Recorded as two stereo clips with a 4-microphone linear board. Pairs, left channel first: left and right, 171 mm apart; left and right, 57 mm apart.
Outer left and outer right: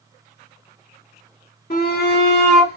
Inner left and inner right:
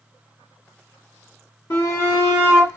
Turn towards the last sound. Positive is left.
turn(degrees=75)  # may be behind; listen again after turning